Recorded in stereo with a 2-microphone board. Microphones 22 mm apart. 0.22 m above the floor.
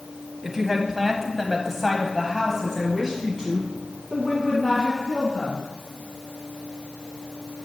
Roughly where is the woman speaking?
Centre.